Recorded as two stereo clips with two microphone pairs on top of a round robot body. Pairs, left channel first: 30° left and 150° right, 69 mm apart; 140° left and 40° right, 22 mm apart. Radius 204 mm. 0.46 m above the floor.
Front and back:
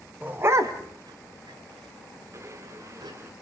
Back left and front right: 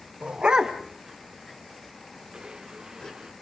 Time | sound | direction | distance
0.2 | a dog barking | 80° right | 1.0 m
2.3 | a blender | 95° right | 0.5 m